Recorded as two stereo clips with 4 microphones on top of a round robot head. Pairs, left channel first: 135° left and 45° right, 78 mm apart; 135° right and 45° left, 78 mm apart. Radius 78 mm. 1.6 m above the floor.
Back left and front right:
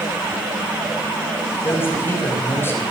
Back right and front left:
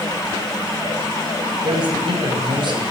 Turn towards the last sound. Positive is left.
turn(degrees=75)